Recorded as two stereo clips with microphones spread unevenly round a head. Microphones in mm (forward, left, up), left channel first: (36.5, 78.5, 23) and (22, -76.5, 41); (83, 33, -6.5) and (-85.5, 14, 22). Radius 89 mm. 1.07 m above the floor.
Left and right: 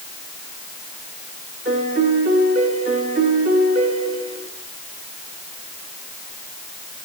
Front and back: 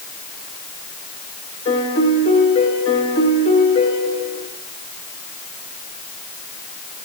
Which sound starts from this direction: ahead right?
A piano, at 1.6 s.